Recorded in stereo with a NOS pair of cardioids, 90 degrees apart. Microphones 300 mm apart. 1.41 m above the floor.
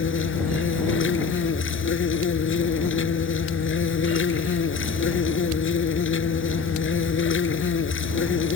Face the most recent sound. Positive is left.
turn(degrees=40)